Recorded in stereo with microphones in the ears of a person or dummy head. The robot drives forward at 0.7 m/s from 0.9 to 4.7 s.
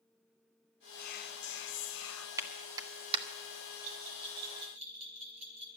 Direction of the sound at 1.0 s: 45° left (ahead or behind).